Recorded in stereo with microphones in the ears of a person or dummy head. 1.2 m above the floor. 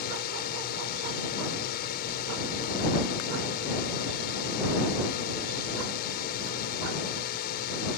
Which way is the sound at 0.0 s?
50° left (ahead or behind).